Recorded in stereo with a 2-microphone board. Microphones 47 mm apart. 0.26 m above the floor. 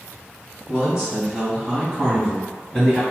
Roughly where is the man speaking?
Centre.